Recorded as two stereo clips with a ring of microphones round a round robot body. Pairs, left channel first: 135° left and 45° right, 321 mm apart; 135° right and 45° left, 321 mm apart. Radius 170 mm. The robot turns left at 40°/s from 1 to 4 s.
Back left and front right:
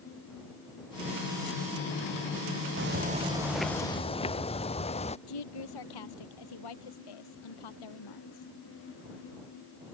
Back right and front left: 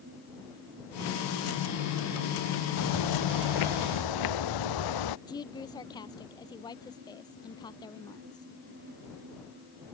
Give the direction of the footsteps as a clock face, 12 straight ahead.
3 o'clock.